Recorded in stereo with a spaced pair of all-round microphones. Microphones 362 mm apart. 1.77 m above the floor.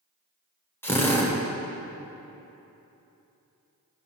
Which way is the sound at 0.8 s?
5° left (ahead or behind).